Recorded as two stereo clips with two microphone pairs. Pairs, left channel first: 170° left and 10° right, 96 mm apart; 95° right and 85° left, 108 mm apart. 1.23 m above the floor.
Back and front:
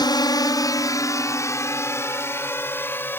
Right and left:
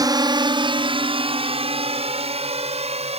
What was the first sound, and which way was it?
A drone, 135° left.